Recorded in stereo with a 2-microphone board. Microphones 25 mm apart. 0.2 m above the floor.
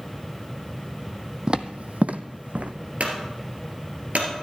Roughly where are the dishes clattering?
No dishes clattering in this recording.